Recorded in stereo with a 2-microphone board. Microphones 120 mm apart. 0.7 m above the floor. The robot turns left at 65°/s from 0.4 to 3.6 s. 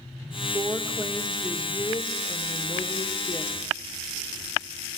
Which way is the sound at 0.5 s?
130° right.